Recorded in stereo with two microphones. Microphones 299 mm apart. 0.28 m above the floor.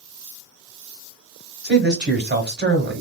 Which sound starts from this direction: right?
A man speaking, at 1.6 s.